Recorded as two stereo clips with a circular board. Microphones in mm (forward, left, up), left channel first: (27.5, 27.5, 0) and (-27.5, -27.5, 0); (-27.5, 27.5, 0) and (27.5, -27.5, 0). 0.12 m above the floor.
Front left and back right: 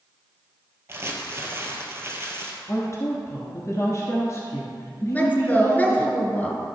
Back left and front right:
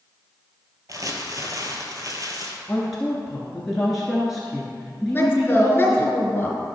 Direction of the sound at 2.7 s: 45° left.